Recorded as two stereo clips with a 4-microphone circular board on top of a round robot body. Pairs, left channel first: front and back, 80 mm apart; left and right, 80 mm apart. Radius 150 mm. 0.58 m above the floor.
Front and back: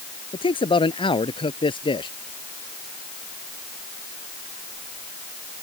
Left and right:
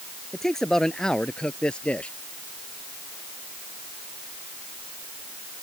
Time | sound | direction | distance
0.3 | a man speaking | 5° left | ?